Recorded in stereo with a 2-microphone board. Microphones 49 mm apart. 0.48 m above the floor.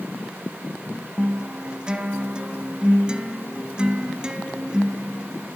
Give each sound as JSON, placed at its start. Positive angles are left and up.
{"t": 1.2, "sound": "a guitar", "side_deg": -20, "distance_m": 1.0}